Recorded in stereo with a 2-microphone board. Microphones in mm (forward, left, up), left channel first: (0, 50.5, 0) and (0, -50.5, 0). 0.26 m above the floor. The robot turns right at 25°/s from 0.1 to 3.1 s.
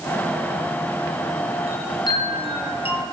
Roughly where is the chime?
Ahead left.